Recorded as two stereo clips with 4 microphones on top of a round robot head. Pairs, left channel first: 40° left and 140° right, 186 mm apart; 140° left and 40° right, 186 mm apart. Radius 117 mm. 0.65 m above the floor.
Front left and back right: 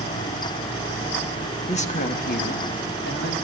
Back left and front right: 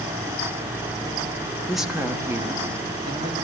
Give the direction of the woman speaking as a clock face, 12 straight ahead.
10 o'clock.